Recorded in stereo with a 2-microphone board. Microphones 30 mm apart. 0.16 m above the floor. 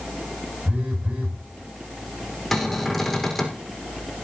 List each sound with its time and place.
0.7 s a phone buzzing: 50° right (ahead or behind), 5.5 m
2.5 s a cupboard door: 15° left (ahead or behind), 4.5 m